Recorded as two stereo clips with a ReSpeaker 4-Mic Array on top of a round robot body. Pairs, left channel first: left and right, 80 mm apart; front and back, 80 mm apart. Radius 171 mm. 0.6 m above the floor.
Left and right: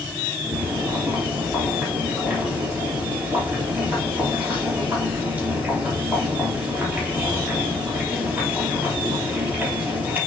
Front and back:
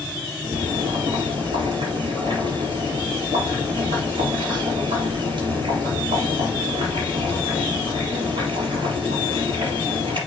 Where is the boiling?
160° right, 4.5 m.